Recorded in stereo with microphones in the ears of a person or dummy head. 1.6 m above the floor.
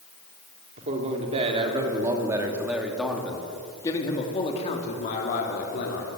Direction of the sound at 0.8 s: 35° right (ahead or behind).